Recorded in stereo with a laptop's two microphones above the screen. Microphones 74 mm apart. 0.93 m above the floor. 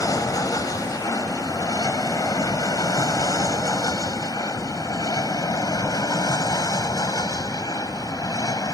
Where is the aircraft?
50° left (ahead or behind); by 8.8 s 55° left (ahead or behind).